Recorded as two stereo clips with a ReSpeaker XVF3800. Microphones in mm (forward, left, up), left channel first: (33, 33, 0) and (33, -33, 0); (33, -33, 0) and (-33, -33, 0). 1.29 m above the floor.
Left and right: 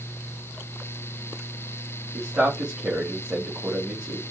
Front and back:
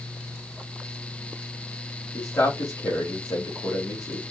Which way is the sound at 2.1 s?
15° right.